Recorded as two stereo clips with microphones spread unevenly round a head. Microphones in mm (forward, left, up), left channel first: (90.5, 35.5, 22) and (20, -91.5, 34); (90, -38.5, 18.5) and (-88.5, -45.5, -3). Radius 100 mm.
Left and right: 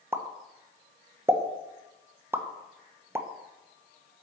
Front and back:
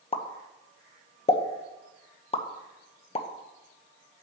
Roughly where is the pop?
Ahead right.